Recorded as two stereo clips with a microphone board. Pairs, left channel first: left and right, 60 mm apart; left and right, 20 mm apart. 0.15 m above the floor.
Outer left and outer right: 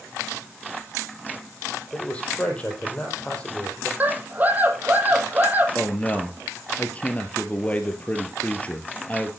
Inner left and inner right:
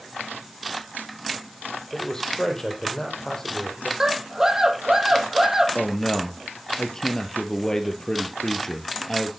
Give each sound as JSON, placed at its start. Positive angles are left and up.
{"t": 1.9, "sound": "a man speaking", "side_deg": 20, "distance_m": 5.0}
{"t": 4.0, "sound": "a scream", "side_deg": -30, "distance_m": 4.5}
{"t": 5.8, "sound": "a man speaking", "side_deg": 25, "distance_m": 3.0}